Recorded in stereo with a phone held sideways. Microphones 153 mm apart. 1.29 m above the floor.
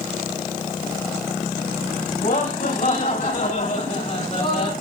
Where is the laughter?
70° left (ahead or behind), 6.5 m; by 4.7 s 55° left (ahead or behind), 5 m.